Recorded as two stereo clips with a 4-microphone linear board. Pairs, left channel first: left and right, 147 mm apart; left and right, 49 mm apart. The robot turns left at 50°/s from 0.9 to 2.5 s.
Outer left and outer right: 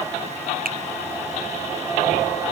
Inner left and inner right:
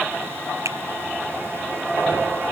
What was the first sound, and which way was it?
A finger snap, 85° right.